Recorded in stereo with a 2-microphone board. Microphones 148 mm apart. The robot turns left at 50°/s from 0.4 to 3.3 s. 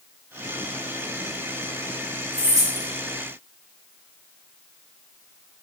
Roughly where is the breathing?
No breathing in this recording.